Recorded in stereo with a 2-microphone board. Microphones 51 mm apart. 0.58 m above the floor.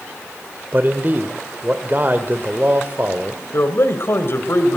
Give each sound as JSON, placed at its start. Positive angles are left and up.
{"t": 0.7, "sound": "a man speaking", "side_deg": -40, "distance_m": 1.9}
{"t": 3.5, "sound": "a man speaking", "side_deg": 50, "distance_m": 2.5}